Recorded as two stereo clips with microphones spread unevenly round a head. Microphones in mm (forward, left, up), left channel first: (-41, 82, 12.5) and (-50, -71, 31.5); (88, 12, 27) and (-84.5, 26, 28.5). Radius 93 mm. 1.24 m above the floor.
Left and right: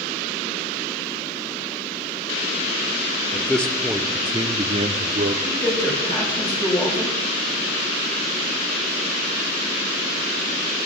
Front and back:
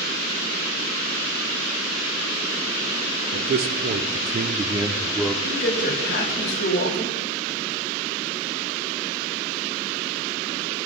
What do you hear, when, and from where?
3.3 s a man speaking: 160° left, 1.0 m; by 5.3 s 85° right, 0.7 m
5.5 s a man speaking: 15° left, 2.5 m